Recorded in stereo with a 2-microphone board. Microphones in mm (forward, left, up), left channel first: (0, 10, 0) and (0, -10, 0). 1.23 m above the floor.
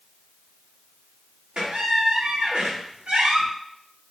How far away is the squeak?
About 0.7 m.